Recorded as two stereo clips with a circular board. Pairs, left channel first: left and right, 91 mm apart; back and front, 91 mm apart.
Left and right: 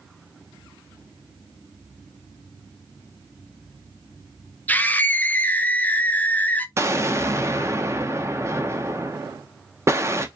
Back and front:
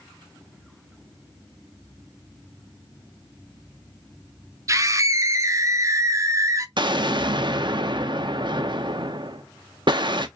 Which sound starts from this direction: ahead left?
A scream, at 4.7 s.